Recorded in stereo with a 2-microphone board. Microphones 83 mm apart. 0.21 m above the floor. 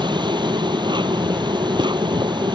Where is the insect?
65° right (ahead or behind).